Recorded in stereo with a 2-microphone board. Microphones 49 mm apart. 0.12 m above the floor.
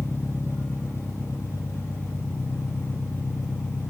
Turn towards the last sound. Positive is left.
turn(degrees=70)  # may be behind; listen again after turning